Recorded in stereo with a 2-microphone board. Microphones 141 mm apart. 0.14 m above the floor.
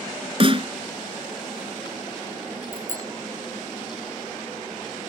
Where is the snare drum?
40° right (ahead or behind).